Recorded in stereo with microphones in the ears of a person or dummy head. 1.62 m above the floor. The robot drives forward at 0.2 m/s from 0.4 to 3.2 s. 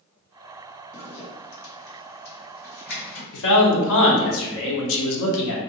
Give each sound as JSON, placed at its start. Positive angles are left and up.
{"t": 0.9, "sound": "a zipper", "side_deg": 65, "distance_m": 1.3}
{"t": 3.3, "sound": "a man speaking", "side_deg": 75, "distance_m": 0.8}